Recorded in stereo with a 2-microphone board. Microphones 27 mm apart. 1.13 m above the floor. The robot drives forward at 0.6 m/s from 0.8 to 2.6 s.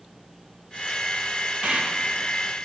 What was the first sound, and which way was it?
Breathing, 50° right (ahead or behind).